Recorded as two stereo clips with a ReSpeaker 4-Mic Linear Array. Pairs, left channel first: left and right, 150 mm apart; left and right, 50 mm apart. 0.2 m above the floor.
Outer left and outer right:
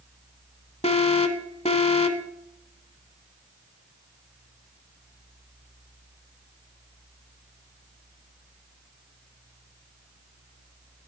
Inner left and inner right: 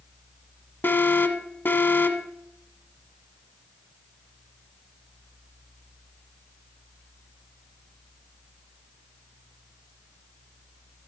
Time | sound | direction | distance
0.8 | an alarm | 45° left (ahead or behind) | 1.1 m